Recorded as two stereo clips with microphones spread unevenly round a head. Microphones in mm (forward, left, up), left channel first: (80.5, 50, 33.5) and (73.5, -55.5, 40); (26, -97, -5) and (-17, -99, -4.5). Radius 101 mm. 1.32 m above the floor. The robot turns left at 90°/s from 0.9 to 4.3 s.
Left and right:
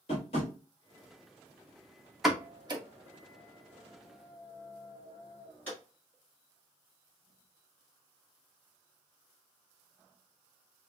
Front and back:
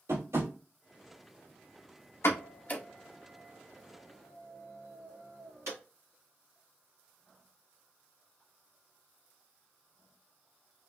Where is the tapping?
130° left, 1.9 m.